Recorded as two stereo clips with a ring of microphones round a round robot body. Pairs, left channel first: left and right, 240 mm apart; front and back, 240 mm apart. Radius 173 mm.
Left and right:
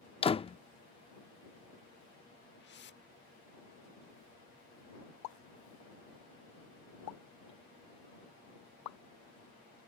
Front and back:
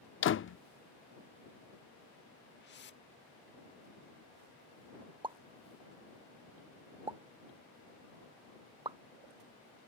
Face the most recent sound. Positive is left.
turn(degrees=105)